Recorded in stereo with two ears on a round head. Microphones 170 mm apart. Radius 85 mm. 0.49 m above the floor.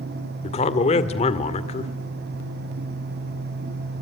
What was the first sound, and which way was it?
A man speaking, 35° left (ahead or behind).